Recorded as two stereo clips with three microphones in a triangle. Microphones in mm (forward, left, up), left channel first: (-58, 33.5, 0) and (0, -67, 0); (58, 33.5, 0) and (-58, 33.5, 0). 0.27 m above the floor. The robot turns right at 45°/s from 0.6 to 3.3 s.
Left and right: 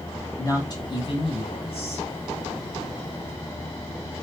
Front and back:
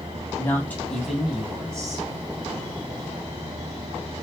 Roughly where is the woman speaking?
Left.